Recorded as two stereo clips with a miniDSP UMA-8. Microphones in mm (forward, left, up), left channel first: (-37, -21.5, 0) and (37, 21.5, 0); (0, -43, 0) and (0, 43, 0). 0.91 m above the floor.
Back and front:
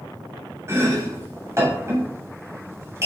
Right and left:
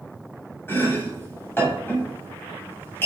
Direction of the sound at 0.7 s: 25° right.